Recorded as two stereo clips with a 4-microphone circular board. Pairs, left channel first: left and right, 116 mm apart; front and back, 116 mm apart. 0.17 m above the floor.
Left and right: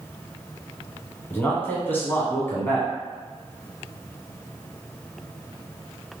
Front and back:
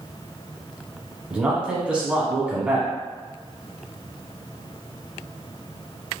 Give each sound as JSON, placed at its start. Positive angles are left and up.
{"t": 1.3, "sound": "a man speaking", "azimuth_deg": 120, "distance_m": 1.0}